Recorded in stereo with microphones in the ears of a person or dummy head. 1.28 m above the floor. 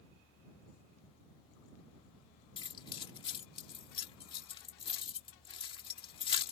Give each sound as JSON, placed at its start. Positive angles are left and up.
{"t": 2.6, "sound": "keys jangling", "side_deg": 25}